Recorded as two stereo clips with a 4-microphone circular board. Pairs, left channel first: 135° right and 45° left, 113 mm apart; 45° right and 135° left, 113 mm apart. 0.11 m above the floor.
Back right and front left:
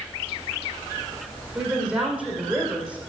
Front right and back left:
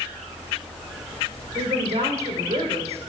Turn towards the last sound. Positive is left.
turn(degrees=125)